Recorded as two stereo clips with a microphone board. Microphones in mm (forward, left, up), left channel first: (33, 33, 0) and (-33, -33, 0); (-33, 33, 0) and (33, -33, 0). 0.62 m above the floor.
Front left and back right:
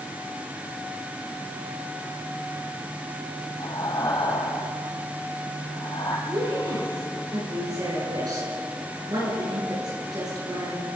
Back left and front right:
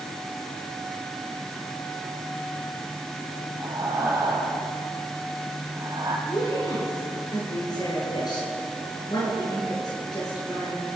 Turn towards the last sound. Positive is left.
turn(degrees=180)